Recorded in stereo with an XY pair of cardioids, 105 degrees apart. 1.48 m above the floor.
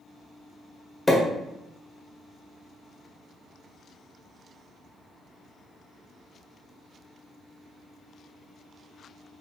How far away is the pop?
About 1.4 m.